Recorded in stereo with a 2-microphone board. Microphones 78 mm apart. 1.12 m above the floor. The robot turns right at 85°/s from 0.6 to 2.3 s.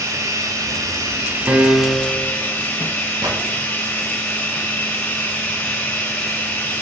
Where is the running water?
105° right, 1.1 m; by 6.8 s 40° left, 1.1 m.